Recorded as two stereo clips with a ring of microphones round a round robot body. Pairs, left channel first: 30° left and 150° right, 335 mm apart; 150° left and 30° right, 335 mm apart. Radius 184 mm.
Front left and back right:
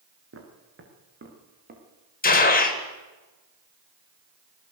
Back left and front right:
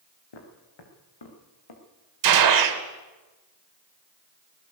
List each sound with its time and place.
0.3 s footsteps: 155° left, 5.5 m; by 1.8 s 145° left, 6 m
2.2 s a gunshot: 30° right, 2.5 m